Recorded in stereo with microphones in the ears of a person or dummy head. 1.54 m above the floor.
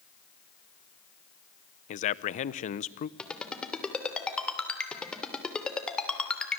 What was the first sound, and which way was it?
A man speaking, 45° left (ahead or behind).